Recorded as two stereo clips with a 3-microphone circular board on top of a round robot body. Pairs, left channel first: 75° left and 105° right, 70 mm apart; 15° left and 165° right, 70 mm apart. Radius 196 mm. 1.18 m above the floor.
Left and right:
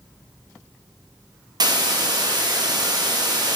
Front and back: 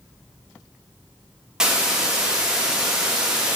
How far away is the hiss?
About 1.9 m.